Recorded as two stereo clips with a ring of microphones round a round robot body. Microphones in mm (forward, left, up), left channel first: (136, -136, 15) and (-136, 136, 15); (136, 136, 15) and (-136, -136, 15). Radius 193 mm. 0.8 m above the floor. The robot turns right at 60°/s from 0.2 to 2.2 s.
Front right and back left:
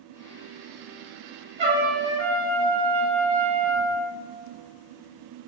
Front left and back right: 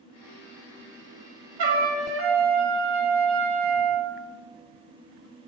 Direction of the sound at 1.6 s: 155° right.